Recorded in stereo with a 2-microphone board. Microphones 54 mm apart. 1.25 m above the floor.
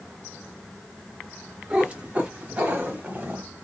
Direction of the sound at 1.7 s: 20° right (ahead or behind).